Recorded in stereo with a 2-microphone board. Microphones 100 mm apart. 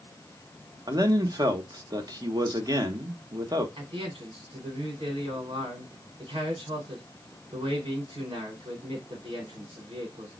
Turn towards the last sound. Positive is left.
turn(degrees=-65)  # may be behind; listen again after turning